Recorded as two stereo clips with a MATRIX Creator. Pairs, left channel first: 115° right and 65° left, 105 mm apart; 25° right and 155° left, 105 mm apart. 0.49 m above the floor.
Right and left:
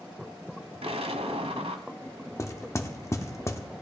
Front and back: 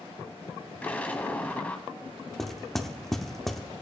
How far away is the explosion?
About 1.0 m.